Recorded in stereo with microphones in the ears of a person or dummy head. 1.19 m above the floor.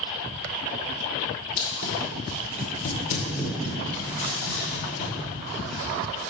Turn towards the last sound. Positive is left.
turn(degrees=10)  # may be behind; listen again after turning